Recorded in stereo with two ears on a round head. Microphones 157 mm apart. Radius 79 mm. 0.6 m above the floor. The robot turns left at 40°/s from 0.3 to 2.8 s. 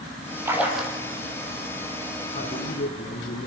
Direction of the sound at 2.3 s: 40° left (ahead or behind).